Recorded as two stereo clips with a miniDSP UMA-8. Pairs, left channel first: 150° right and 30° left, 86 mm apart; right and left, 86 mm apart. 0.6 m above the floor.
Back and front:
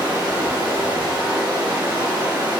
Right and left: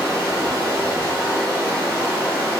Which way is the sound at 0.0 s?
45° left.